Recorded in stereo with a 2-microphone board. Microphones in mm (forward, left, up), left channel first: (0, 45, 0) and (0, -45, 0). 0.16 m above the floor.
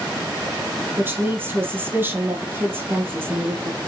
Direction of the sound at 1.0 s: 25° right (ahead or behind).